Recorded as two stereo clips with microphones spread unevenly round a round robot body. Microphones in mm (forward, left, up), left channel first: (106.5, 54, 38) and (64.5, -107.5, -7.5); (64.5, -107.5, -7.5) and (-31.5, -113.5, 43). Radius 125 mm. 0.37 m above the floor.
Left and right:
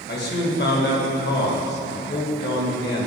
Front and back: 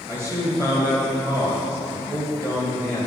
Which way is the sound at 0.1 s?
90° left.